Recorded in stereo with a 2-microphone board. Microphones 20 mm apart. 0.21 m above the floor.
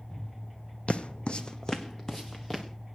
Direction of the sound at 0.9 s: 75° left (ahead or behind).